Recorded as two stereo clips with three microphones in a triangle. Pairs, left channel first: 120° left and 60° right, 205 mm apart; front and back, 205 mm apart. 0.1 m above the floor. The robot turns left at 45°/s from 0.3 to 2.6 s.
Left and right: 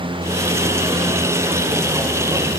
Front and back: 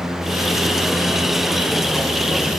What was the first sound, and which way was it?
Only background noise.